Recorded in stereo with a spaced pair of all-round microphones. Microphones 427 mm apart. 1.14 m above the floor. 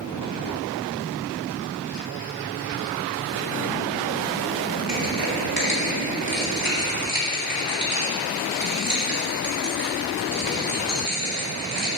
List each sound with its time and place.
4.9 s crushing: 50° right (ahead or behind), 1.9 m